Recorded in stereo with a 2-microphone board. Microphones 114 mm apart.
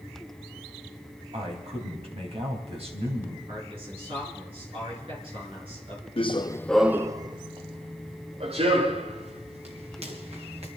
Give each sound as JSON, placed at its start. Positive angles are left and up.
{"t": 1.3, "sound": "a man speaking", "side_deg": -65, "distance_m": 3.5}
{"t": 3.5, "sound": "a man speaking", "side_deg": -55, "distance_m": 5.5}
{"t": 6.2, "sound": "running footsteps", "side_deg": 60, "distance_m": 0.7}